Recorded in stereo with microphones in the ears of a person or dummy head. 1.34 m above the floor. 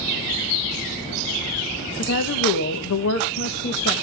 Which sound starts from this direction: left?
A woman speaking, at 2.0 s.